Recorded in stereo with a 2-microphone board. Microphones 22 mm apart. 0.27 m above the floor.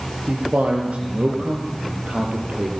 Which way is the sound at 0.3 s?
80° right.